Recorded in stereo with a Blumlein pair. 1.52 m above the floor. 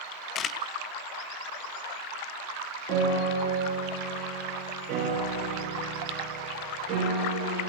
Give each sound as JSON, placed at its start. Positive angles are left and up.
{"t": 0.3, "sound": "a camera shutter", "azimuth_deg": 25, "distance_m": 0.7}
{"t": 2.9, "sound": "a piano", "azimuth_deg": -30, "distance_m": 8.0}